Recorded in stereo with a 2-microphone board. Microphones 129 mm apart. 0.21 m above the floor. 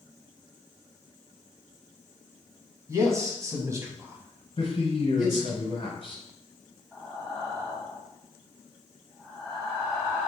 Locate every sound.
2.9 s a man speaking: 25° right (ahead or behind), 1.3 m; by 5.6 s 5° right (ahead or behind), 1.5 m
4.6 s a man speaking: 50° left (ahead or behind), 1.8 m
6.9 s breathing: 5° right (ahead or behind), 1.7 m